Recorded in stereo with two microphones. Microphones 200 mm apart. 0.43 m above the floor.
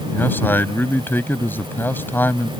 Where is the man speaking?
10° left (ahead or behind).